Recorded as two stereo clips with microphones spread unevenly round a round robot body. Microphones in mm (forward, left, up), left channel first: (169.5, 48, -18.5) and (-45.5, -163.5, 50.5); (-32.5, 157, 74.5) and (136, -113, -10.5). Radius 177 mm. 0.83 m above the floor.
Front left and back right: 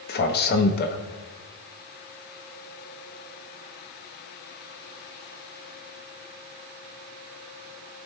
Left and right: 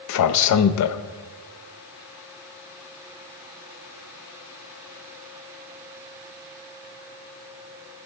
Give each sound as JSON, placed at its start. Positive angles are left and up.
{"t": 0.1, "sound": "a man speaking", "azimuth_deg": 80, "distance_m": 0.6}